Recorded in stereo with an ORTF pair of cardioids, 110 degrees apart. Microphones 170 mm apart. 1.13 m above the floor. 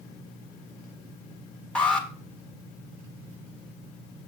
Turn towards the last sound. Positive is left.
turn(degrees=5)